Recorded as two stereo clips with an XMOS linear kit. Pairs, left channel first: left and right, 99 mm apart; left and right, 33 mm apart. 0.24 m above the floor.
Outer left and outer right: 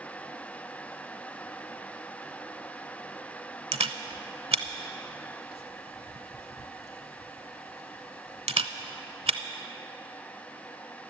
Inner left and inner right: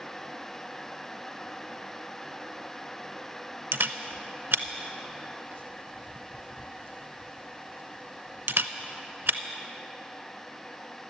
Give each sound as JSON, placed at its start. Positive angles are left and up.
{"t": 3.7, "sound": "a camera shutter", "side_deg": -80, "distance_m": 0.6}